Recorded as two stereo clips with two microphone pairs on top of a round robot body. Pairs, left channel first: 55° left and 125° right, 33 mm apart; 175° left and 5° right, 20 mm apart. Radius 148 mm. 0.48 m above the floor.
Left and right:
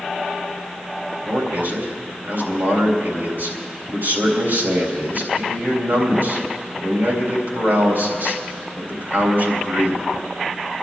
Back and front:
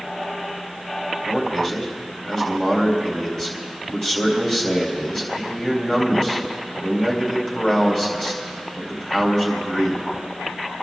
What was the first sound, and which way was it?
A man speaking, 125° right.